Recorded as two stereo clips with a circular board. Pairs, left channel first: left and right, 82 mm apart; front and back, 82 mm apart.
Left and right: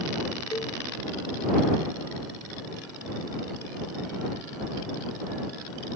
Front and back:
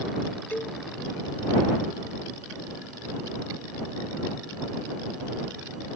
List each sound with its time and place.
0.5 s a cowbell: 65° left